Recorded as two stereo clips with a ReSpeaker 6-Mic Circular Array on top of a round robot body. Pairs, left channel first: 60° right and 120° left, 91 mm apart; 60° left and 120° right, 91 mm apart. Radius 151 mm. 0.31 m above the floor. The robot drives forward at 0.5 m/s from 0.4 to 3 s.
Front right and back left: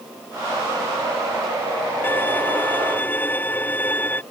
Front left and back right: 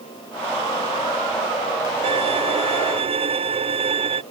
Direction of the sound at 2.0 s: 130° right.